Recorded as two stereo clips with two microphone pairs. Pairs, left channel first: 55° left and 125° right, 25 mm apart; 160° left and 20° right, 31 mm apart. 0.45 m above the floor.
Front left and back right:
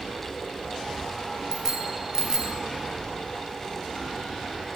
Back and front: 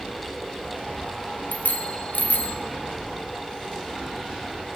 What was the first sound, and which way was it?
A bicycle bell, 170° left.